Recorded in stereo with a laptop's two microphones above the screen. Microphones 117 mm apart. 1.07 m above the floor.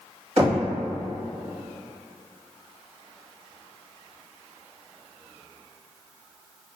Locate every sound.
0.4 s knocking: 50° right (ahead or behind), 1.1 m